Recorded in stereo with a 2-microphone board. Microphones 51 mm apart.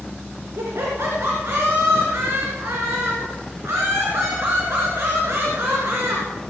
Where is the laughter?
70° right (ahead or behind), 2.5 m.